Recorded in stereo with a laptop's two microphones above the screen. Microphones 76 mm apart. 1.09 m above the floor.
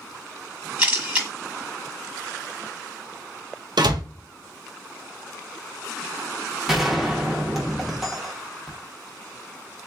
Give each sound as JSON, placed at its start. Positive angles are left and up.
{"t": 0.8, "sound": "a camera shutter", "side_deg": -20, "distance_m": 1.2}
{"t": 3.8, "sound": "a door slam", "side_deg": -75, "distance_m": 0.5}
{"t": 6.7, "sound": "a gunshot", "side_deg": -5, "distance_m": 0.7}